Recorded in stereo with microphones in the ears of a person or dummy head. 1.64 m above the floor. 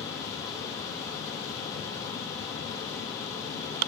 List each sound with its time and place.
0.0 s a fan: 20° left (ahead or behind), 1.3 m